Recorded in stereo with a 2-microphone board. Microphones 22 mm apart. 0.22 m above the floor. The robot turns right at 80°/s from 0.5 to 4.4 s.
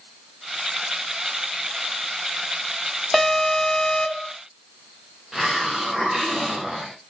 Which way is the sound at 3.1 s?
5° left.